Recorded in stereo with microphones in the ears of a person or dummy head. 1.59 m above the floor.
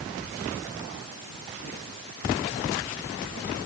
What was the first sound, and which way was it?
Only background noise.